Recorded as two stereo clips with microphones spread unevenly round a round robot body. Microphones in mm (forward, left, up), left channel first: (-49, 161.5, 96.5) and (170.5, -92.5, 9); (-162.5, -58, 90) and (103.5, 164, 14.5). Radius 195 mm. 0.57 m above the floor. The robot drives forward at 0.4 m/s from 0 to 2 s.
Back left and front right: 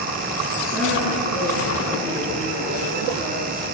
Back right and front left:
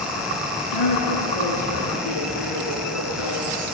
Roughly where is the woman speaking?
Right.